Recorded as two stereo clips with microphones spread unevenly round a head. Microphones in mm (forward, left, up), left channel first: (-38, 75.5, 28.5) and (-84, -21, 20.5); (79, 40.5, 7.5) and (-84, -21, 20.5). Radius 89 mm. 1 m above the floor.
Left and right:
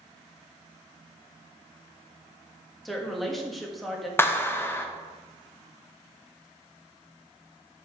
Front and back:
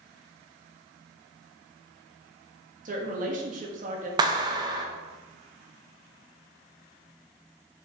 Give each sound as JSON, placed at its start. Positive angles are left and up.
{"t": 2.9, "sound": "a woman speaking", "azimuth_deg": 155, "distance_m": 1.5}
{"t": 4.2, "sound": "a clap", "azimuth_deg": 135, "distance_m": 0.8}